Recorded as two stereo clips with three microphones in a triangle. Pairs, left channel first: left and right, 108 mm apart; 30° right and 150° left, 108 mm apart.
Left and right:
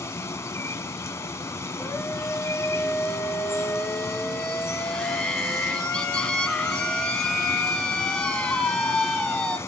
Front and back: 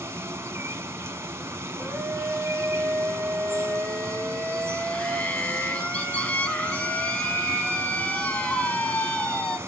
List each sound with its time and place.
0.0 s running water: 120° left, 0.9 m
1.8 s a scream: 25° left, 1.6 m